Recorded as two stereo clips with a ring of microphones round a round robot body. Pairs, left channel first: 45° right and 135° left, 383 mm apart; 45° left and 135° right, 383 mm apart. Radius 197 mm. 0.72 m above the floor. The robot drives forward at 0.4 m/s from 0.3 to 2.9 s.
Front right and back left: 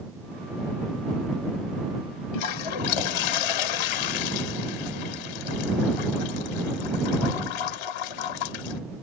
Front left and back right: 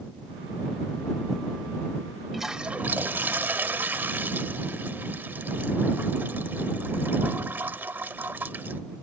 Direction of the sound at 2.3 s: 45° right.